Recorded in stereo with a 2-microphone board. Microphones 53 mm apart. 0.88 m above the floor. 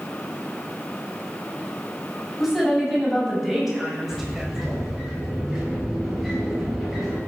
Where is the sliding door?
Centre (ahead or behind), 7 m.